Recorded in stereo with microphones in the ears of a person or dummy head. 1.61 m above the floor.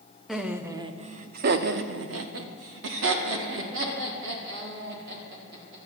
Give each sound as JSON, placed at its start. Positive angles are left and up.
{"t": 0.3, "sound": "laughter", "side_deg": 0, "distance_m": 1.0}